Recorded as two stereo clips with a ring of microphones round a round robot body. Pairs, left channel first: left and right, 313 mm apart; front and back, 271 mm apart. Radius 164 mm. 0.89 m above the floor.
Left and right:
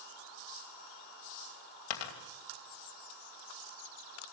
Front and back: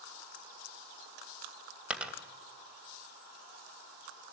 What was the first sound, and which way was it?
A dropped coin, 95° left.